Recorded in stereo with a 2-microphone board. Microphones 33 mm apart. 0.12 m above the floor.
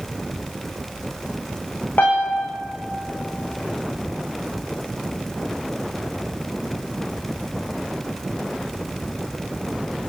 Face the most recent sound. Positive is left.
turn(degrees=75)  # may be behind; listen again after turning